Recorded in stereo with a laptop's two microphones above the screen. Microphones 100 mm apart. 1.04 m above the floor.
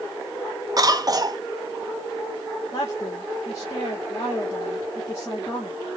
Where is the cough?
35° right (ahead or behind), 1.2 m.